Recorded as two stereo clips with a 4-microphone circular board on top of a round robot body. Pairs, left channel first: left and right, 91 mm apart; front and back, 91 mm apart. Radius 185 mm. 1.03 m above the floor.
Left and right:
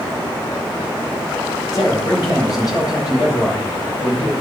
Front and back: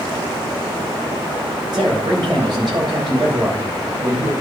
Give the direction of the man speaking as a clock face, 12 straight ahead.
7 o'clock.